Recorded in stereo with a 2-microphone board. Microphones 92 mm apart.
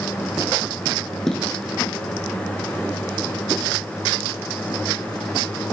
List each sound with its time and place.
1.3 s footsteps: 5° left (ahead or behind), 0.6 m